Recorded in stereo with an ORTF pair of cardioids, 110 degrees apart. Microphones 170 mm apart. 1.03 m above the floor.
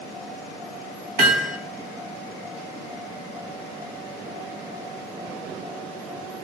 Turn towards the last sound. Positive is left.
turn(degrees=-70)